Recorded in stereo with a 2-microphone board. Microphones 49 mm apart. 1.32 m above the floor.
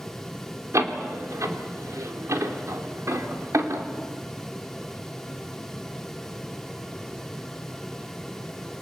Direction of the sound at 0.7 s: 85° right.